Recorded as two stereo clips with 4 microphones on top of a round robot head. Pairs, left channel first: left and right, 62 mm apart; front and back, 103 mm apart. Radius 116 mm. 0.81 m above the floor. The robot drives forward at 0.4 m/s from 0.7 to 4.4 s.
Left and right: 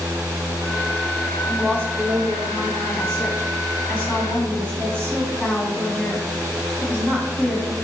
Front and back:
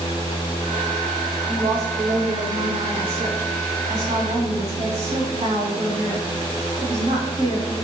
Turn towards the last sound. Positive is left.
turn(degrees=165)